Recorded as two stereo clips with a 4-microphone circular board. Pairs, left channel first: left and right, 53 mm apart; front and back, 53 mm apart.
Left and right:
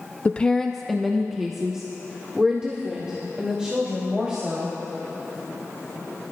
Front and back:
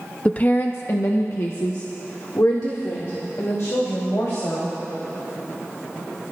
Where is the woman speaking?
50° left, 0.5 m; by 4.8 s 20° right, 3.5 m.